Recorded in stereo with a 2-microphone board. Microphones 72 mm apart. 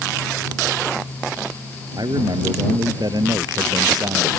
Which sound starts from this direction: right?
A man speaking, at 1.9 s.